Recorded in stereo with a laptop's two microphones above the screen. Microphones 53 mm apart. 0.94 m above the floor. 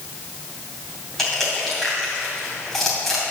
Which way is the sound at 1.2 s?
10° left (ahead or behind).